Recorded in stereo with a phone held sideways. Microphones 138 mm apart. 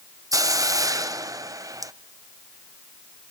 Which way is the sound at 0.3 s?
25° right (ahead or behind).